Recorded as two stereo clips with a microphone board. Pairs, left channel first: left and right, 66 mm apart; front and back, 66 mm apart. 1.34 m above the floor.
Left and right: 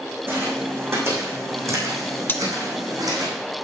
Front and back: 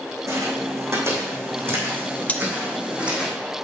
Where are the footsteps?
140° right, 4.5 m; by 3.3 s 105° right, 4 m.